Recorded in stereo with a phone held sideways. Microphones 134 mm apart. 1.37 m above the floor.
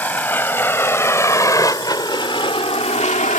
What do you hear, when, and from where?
0.0 s a vehicle: 15° left (ahead or behind); by 3.4 s 75° left (ahead or behind)